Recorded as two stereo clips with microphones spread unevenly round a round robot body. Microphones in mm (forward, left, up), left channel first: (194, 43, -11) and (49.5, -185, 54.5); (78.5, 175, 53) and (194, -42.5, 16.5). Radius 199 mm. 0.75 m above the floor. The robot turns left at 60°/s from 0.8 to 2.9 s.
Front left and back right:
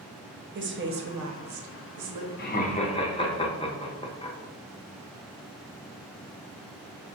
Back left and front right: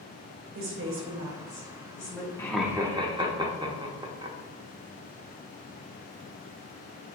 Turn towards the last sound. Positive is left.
turn(degrees=0)